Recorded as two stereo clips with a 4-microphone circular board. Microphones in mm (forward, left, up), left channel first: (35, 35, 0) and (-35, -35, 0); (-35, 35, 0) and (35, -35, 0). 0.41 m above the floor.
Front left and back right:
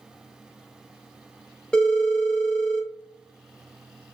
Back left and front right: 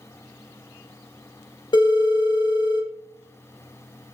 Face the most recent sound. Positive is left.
turn(degrees=125)